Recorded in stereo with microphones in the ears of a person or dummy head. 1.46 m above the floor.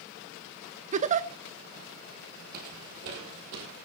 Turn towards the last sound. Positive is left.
turn(degrees=-55)  # may be behind; listen again after turning